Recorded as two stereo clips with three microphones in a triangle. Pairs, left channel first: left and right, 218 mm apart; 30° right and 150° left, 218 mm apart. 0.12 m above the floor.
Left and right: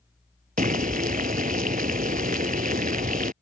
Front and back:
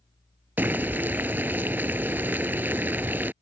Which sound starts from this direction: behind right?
Boiling, at 0.6 s.